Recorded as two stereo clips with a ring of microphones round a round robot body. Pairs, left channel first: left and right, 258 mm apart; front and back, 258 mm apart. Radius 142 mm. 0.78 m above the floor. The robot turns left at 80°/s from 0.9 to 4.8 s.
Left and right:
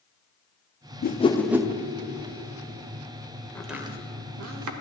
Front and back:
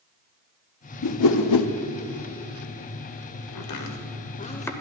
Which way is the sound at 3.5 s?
10° left.